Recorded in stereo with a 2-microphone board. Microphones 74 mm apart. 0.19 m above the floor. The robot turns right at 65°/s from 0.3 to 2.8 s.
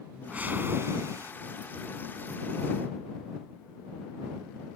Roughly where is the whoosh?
Behind right.